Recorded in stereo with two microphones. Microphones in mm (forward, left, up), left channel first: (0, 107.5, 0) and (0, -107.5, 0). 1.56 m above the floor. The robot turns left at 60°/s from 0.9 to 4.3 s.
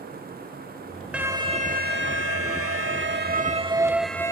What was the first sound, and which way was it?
An alarm, 5° right.